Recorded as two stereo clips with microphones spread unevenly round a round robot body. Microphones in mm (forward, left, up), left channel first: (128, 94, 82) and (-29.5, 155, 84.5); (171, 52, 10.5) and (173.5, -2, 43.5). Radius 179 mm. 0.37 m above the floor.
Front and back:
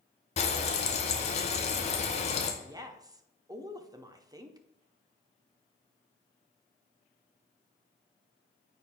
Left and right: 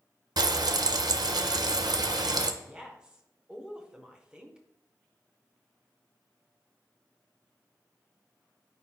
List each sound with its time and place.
0.4 s frying: 65° right, 0.7 m
2.6 s a woman speaking: 125° left, 0.9 m